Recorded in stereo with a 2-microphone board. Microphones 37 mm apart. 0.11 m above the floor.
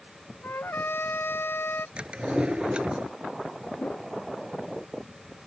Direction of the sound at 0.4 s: 70° left (ahead or behind).